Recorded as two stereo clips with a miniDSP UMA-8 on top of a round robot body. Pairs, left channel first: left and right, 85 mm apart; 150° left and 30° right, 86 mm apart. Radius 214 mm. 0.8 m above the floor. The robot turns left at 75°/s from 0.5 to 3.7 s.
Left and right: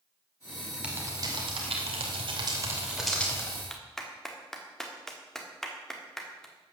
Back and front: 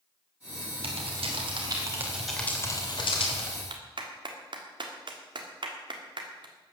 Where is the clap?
5° left, 1.6 m.